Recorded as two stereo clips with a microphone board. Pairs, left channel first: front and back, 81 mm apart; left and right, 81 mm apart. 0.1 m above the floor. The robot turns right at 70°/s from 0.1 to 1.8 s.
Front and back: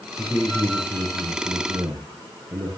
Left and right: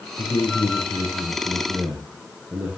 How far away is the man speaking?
About 4 m.